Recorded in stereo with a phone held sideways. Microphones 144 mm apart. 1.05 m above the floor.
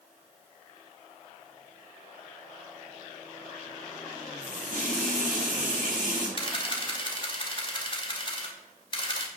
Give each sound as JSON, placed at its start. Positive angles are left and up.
{"t": 4.4, "sound": "a running tap", "side_deg": -70, "distance_m": 5.5}
{"t": 6.4, "sound": "a camera shutter", "side_deg": 35, "distance_m": 2.5}